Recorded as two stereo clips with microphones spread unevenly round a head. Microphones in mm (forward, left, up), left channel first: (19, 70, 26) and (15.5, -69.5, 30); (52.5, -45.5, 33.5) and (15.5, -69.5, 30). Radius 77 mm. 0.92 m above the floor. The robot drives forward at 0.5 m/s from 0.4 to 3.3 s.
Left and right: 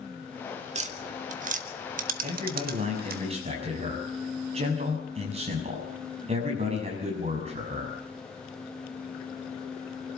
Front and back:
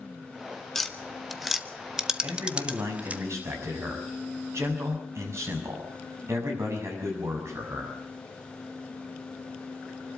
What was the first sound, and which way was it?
Tapping, 50° right.